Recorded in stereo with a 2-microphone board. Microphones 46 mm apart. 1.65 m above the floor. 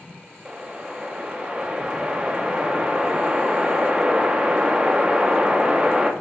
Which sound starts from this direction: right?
A whoosh, at 0.5 s.